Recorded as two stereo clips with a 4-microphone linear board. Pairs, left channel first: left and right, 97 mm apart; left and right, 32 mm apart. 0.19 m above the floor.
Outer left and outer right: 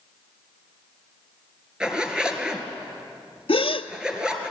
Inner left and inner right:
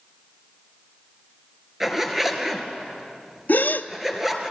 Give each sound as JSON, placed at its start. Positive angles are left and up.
{"t": 1.8, "sound": "a zipper", "side_deg": -10, "distance_m": 2.5}
{"t": 3.5, "sound": "a gasp", "side_deg": 75, "distance_m": 1.0}